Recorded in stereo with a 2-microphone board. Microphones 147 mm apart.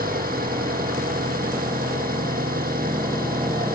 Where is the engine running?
85° right.